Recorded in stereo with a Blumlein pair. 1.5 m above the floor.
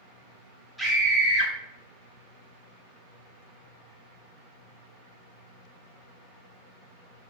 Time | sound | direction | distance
0.8 | a scream | straight ahead | 1.9 m